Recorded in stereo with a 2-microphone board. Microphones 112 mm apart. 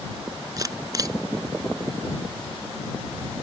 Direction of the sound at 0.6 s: 35° right (ahead or behind).